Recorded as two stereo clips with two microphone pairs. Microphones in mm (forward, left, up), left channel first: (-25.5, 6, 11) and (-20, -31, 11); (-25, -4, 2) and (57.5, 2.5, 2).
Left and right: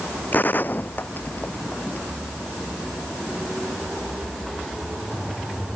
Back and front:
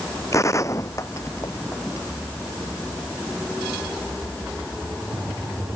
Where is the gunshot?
130° left.